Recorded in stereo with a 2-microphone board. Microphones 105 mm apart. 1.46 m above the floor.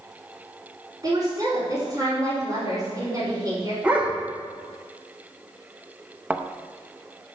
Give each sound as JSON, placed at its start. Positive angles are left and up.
{"t": 1.0, "sound": "a woman speaking", "side_deg": -35, "distance_m": 4.0}
{"t": 3.8, "sound": "a dog barking", "side_deg": -15, "distance_m": 1.6}
{"t": 6.3, "sound": "a thud", "side_deg": -15, "distance_m": 0.7}